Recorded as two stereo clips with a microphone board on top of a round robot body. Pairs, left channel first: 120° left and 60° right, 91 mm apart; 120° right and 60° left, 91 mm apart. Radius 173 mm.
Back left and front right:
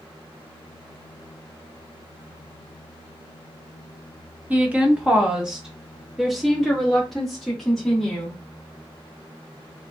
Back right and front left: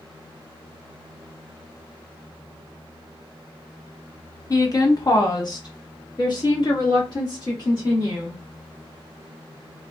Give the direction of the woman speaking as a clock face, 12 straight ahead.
4 o'clock.